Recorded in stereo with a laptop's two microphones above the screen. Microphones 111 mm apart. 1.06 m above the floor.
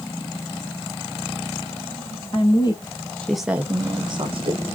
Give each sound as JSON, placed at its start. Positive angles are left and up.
{"t": 2.3, "sound": "a woman speaking", "side_deg": 55, "distance_m": 1.1}